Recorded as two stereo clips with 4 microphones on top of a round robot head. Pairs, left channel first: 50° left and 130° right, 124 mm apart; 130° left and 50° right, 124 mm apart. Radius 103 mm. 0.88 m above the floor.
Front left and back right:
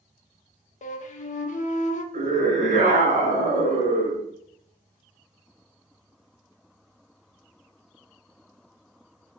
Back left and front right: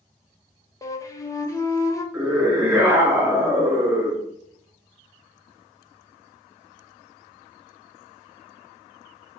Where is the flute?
65° left, 0.7 m.